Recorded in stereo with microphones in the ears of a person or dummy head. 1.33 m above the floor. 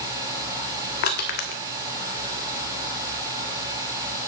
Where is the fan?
25° right (ahead or behind), 6 m.